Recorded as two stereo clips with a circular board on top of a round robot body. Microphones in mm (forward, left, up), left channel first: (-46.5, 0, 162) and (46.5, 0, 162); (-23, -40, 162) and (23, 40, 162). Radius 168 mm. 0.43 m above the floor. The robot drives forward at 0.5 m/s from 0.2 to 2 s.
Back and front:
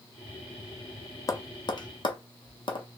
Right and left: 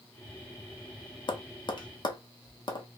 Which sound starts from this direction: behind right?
Tapping, at 1.3 s.